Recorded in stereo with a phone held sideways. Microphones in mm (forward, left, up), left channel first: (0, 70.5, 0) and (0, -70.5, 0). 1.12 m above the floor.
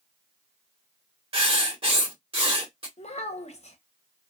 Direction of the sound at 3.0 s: 50° left (ahead or behind).